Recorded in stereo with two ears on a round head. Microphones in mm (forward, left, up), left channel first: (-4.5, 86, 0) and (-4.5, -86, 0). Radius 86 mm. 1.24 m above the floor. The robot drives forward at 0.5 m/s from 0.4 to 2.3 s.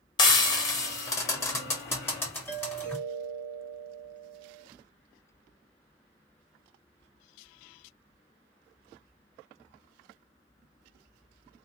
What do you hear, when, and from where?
0.2 s frying: 25° left (ahead or behind), 1.1 m; by 3.0 s 10° left (ahead or behind), 2.0 m
2.5 s a doorbell: 10° left (ahead or behind), 1.6 m